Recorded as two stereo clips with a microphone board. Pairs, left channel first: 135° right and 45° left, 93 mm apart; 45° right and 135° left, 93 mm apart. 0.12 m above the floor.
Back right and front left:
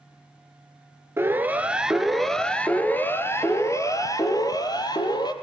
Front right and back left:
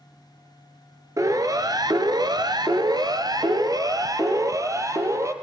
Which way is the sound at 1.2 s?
100° left.